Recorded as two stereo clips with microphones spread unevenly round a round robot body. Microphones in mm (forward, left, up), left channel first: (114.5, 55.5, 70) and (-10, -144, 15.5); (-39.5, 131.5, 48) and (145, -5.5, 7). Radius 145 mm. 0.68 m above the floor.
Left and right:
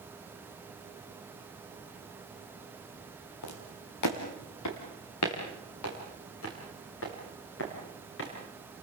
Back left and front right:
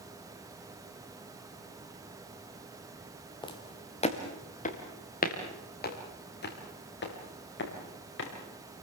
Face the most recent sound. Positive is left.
turn(degrees=110)